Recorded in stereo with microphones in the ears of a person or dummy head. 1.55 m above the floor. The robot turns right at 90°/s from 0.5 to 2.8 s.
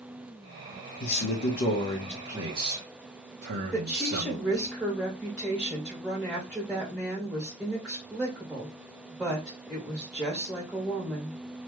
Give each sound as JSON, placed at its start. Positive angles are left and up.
{"t": 1.0, "sound": "a man speaking", "azimuth_deg": 75, "distance_m": 1.1}
{"t": 3.7, "sound": "a woman speaking", "side_deg": -10, "distance_m": 1.8}